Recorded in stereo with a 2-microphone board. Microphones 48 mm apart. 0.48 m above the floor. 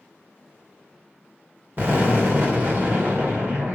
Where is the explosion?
50° right (ahead or behind), 1.8 m.